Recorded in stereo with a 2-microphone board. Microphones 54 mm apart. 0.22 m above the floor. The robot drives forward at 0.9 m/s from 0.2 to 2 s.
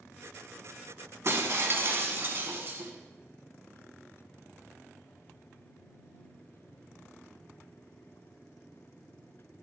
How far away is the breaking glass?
About 1.0 m.